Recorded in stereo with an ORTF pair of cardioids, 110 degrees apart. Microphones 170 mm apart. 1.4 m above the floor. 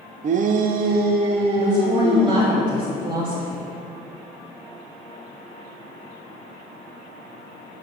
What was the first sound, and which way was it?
A shout, 45° right.